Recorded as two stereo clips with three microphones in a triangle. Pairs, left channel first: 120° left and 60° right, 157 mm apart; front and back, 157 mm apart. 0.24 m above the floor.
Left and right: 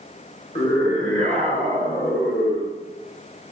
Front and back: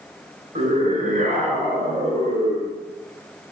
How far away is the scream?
About 3 m.